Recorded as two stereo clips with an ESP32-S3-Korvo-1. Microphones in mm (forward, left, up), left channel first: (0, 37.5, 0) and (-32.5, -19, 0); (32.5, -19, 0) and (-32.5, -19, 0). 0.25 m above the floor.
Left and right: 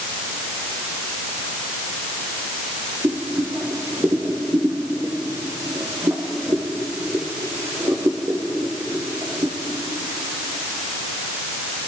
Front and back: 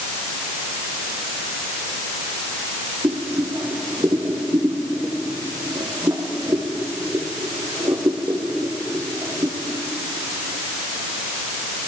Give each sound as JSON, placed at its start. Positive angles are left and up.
{"t": 3.0, "sound": "boiling", "azimuth_deg": -155, "distance_m": 6.5}